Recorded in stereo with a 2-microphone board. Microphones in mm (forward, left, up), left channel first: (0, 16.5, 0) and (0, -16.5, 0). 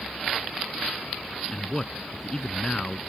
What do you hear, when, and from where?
1.5 s a man speaking: 25° left (ahead or behind)